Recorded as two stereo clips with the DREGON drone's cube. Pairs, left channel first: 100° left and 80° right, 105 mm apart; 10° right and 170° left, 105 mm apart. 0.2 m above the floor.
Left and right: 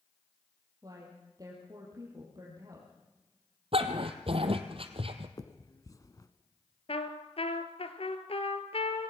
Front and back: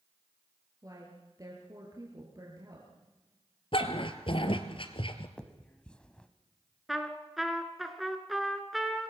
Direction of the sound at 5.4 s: 65° left.